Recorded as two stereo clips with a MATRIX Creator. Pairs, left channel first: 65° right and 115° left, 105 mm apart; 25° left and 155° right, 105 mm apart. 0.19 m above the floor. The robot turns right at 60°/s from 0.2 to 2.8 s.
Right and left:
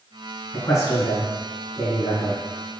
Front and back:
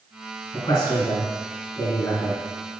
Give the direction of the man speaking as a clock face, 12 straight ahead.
1 o'clock.